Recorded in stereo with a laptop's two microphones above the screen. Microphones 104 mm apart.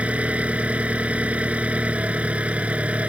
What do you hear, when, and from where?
0.0 s an engine running: 10° right (ahead or behind)